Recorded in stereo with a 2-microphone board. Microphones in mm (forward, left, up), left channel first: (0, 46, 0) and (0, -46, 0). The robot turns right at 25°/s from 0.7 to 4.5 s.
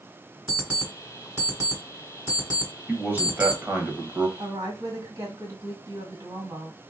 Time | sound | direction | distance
0.5 | an alarm clock | 15° right (ahead or behind) | 1.7 m
2.9 | a man speaking | 20° right (ahead or behind) | 0.9 m
4.4 | a woman speaking | 40° right (ahead or behind) | 2 m